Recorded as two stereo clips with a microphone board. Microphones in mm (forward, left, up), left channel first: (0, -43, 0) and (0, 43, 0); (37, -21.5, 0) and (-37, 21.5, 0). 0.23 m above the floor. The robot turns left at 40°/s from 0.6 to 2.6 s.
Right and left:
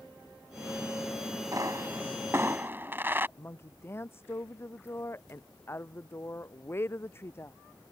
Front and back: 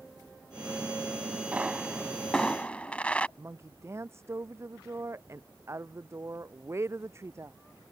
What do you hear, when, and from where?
1.5 s a pop: 80° left; by 3.3 s 40° left
3.4 s a woman speaking: 150° right